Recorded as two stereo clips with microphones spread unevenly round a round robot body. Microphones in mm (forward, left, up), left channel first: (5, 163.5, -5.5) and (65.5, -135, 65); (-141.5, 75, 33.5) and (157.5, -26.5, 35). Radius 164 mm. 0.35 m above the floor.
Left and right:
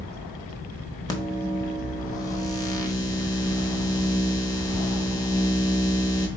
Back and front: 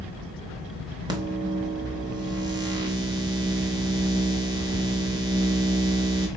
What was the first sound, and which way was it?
A microwave, 50° left.